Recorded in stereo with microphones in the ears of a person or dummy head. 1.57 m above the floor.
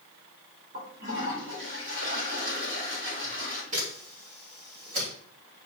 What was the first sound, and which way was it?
A toilet flushing, 45° right (ahead or behind).